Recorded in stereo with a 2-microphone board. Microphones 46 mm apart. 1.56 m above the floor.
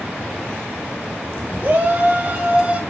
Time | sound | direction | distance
1.6 | a shout | 35° right (ahead or behind) | 3.5 m